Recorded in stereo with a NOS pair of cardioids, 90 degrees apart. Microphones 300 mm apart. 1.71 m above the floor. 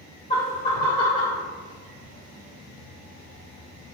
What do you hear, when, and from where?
0.3 s laughter: 20° left, 0.7 m; by 1.4 s 25° left, 1.3 m